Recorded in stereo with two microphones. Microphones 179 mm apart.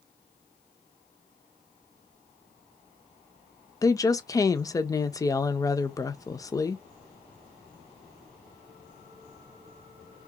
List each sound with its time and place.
3.8 s a woman speaking: 20° left (ahead or behind), 0.6 m